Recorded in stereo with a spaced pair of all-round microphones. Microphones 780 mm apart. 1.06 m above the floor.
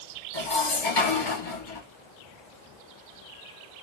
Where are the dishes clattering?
75° left (ahead or behind), 1.4 m.